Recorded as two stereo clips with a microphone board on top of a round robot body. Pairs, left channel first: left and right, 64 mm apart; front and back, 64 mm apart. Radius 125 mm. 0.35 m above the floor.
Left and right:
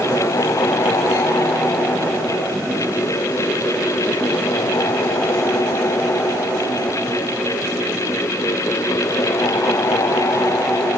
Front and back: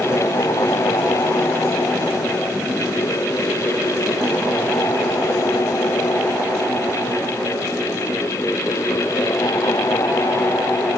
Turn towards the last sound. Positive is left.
No sound to turn to.